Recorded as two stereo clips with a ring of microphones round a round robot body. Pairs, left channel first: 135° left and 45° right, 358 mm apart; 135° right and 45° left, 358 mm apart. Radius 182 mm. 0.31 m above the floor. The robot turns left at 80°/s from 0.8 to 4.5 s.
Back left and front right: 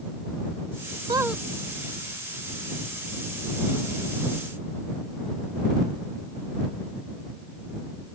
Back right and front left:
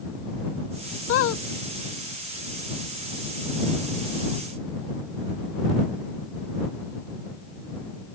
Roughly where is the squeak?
Right.